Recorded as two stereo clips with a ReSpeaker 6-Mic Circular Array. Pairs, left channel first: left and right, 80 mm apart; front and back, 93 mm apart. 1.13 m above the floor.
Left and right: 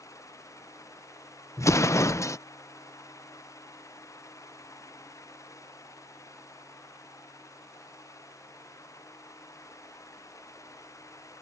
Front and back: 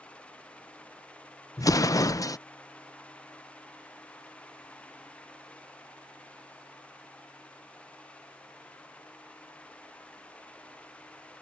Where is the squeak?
No squeak in this recording.